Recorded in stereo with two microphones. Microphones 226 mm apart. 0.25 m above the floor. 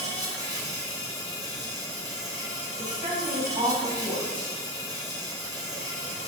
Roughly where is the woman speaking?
Right.